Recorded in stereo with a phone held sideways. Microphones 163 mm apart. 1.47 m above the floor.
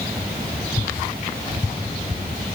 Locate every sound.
Only background noise.